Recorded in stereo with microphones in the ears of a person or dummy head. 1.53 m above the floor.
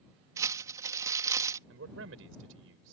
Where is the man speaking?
85° right.